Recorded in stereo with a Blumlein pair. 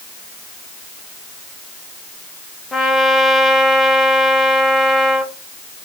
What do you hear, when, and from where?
2.7 s a trumpet: 5° left, 1.0 m